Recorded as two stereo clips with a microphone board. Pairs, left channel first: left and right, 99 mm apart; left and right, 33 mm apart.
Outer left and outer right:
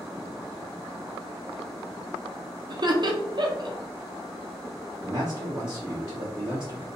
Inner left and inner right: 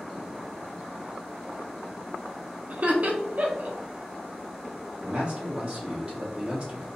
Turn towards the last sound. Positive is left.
turn(degrees=-40)  # may be behind; listen again after turning